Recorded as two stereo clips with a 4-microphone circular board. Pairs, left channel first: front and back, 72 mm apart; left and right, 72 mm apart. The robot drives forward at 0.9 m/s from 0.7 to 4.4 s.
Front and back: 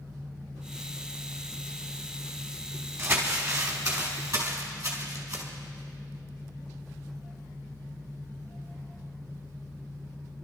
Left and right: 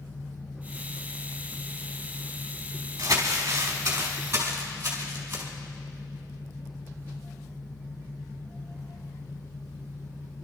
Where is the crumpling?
130° right, 3 m; by 5.4 s 145° right, 3.5 m.